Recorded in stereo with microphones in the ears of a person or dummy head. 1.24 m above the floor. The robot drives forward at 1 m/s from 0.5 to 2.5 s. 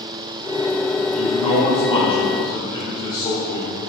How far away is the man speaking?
About 3.5 m.